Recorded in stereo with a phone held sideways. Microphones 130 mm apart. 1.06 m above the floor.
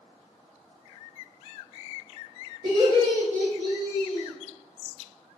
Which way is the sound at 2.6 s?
50° right (ahead or behind).